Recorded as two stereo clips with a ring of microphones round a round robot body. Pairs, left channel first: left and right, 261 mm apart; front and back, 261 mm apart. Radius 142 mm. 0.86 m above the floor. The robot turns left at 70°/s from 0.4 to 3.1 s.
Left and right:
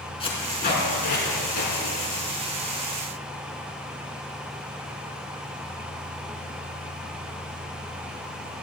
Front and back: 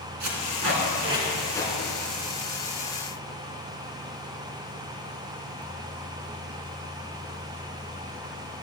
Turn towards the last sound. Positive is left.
turn(degrees=-30)